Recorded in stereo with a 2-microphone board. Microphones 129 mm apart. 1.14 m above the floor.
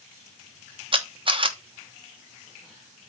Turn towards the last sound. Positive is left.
turn(degrees=-40)  # may be behind; listen again after turning